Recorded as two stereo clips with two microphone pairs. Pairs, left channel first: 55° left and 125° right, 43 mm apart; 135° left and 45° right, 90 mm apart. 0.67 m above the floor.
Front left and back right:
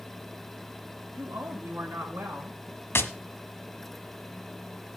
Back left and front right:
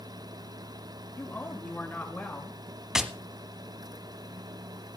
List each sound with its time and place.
1.1 s a woman speaking: 155° right, 7 m; by 2.6 s 145° right, 7.5 m
3.0 s tapping: 35° left, 1.2 m